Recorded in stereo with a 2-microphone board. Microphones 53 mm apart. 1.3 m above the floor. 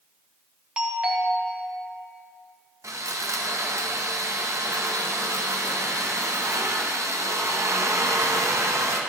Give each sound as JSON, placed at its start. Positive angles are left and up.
{"t": 0.8, "sound": "a doorbell", "side_deg": -20, "distance_m": 1.3}
{"t": 2.8, "sound": "sawing", "side_deg": -65, "distance_m": 0.8}